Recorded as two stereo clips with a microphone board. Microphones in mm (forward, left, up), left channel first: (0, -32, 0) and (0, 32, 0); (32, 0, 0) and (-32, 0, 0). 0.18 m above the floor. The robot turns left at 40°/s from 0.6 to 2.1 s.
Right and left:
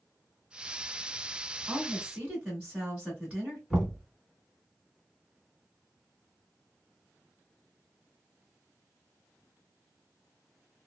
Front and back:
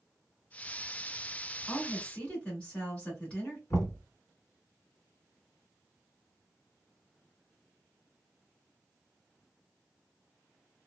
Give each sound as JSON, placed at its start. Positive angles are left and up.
{"t": 1.7, "sound": "a woman speaking", "azimuth_deg": 65, "distance_m": 1.7}
{"t": 3.7, "sound": "knocking", "azimuth_deg": 10, "distance_m": 1.5}